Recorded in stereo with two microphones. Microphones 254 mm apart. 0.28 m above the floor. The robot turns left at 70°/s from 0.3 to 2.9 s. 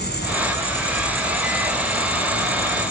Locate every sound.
0.0 s an insect: 50° left, 4 m; by 2.9 s 135° right, 4 m